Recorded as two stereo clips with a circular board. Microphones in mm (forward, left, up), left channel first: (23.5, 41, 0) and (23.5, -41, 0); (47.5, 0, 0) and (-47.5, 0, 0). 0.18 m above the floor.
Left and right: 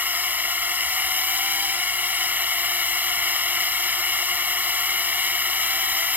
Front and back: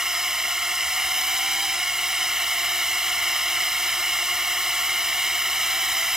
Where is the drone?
105° right.